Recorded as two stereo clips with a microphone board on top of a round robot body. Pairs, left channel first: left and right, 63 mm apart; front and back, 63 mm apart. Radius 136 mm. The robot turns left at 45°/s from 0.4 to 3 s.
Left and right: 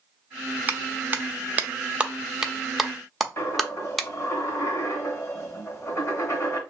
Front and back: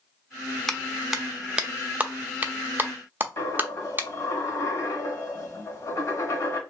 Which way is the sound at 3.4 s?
50° left.